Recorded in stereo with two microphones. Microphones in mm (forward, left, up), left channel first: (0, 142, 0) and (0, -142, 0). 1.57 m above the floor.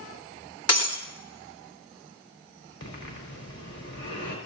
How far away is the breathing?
About 4.5 m.